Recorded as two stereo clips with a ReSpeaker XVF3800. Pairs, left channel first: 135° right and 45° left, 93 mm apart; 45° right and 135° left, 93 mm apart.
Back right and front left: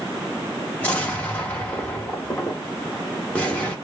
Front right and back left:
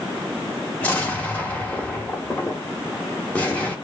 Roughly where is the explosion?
Right.